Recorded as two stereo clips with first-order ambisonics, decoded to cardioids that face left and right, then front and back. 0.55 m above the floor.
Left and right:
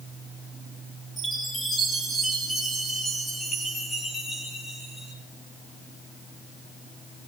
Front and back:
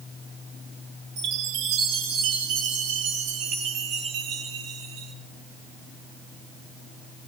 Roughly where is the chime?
Behind.